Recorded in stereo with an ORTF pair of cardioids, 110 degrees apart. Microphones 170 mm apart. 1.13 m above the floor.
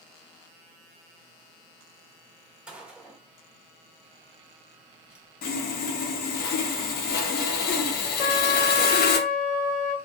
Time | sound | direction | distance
2.7 | a gunshot | 5° right | 1.2 m
5.4 | sawing | 65° left | 0.7 m
8.2 | a trumpet | 70° left | 0.7 m